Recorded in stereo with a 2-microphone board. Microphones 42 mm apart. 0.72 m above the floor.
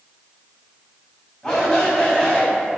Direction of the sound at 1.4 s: 5° left (ahead or behind).